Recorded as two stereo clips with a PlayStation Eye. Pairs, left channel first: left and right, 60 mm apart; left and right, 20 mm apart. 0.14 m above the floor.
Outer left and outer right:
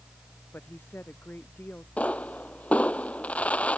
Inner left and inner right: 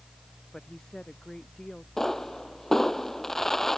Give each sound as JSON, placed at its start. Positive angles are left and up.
{"t": 0.5, "sound": "a woman speaking", "side_deg": 35}
{"t": 2.0, "sound": "a pop", "side_deg": 20}